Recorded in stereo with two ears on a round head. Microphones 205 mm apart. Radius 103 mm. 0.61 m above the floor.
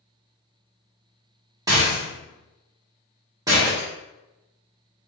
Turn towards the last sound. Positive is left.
turn(degrees=-15)  # may be behind; listen again after turning